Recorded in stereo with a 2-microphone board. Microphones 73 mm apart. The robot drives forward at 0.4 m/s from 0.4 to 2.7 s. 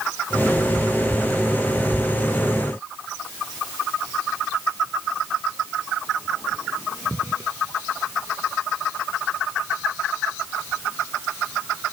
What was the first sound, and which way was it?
Only background noise.